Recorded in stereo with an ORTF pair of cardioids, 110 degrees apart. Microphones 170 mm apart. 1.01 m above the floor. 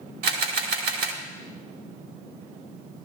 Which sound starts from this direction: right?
A camera shutter, at 0.2 s.